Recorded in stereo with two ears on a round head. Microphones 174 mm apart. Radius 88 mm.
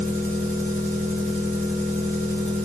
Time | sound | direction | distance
0.0 | an engine running | 10° left (ahead or behind) | 1.7 m